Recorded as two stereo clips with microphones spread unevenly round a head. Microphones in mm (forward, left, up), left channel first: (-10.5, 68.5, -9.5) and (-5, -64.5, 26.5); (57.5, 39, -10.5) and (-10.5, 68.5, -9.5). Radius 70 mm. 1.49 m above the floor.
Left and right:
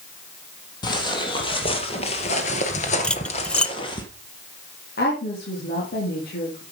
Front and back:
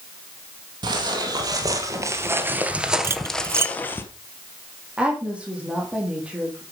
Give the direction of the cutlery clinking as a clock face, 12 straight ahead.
6 o'clock.